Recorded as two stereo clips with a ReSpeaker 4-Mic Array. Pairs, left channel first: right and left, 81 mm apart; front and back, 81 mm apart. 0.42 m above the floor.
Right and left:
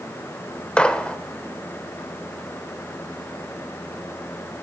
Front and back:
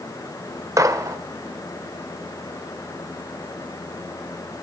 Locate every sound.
0.8 s a gunshot: 160° right, 1.2 m